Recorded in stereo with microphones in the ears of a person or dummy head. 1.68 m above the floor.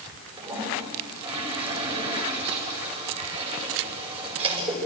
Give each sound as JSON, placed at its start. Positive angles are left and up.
{"t": 0.4, "sound": "a toilet flushing", "side_deg": -25, "distance_m": 9.0}